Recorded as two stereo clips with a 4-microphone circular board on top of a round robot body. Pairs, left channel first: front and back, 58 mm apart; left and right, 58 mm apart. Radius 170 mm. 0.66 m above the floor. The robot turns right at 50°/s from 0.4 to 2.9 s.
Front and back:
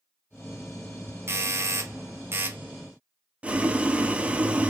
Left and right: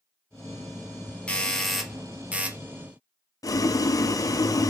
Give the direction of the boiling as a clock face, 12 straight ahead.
8 o'clock.